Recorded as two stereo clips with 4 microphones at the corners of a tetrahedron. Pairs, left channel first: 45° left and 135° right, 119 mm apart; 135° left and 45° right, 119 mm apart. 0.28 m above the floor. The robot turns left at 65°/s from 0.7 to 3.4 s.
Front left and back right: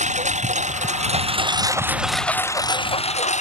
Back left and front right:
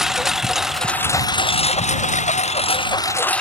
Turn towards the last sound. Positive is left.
turn(degrees=55)